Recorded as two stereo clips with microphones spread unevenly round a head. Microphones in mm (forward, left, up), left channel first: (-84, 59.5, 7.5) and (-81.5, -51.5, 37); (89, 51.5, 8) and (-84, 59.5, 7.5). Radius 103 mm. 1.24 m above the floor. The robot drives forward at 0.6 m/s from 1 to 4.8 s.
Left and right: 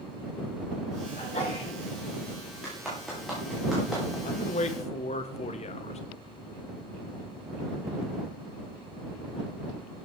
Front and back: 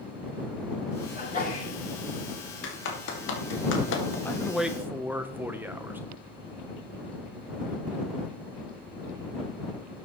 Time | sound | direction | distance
1.1 | a sneeze | 35° left | 7 m
2.6 | a clap | straight ahead | 2.5 m
4.2 | a man speaking | 75° left | 0.8 m